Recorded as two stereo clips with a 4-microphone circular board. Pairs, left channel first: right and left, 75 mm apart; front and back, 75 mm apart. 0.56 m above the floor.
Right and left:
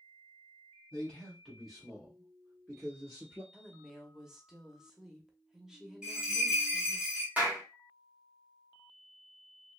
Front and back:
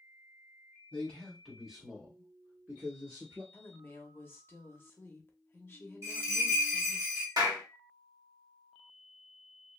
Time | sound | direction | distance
0.9 | a man speaking | 45° right | 1.3 m
3.5 | a woman speaking | 15° left | 0.7 m
6.0 | a bell | 165° left | 1.1 m
7.4 | a clap | 160° left | 1.2 m